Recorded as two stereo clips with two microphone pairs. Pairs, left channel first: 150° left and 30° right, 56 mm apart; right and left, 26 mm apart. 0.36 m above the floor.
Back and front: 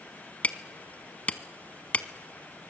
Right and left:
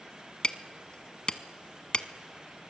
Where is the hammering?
150° right, 1.0 m.